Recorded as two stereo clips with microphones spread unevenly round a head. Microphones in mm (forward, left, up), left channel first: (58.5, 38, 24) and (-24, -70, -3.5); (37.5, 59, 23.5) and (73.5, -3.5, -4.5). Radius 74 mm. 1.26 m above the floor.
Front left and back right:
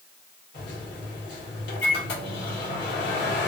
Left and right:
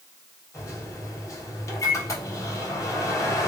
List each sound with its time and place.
0.5 s a microwave: 75° left, 1.4 m